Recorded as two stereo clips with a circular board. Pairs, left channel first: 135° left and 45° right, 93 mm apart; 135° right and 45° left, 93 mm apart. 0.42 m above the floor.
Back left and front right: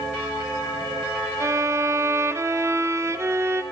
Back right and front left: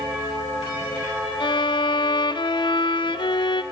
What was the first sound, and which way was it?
A violin, 105° right.